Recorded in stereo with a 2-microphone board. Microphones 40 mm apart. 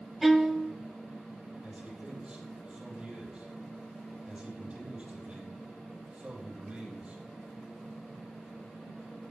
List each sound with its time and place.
0.2 s a violin: 5° right (ahead or behind), 0.6 m
1.6 s a man speaking: 30° right (ahead or behind), 4 m